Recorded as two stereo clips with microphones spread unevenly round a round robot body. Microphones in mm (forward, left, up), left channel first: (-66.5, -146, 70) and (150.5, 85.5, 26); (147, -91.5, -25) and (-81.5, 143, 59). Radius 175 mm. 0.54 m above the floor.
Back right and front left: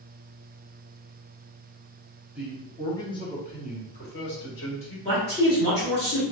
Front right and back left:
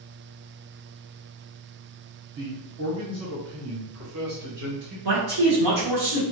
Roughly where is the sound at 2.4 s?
Left.